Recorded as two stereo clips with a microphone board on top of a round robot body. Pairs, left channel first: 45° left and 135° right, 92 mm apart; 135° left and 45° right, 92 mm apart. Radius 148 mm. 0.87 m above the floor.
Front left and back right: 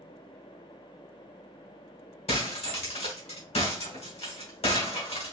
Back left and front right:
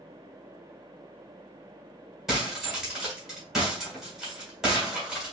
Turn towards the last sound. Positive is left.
turn(degrees=45)